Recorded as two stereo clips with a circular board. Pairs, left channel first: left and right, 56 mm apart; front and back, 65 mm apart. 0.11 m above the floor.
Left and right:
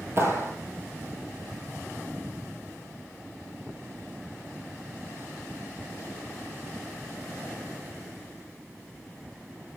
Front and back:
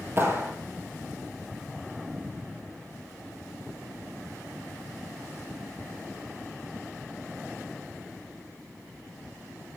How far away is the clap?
About 2.5 m.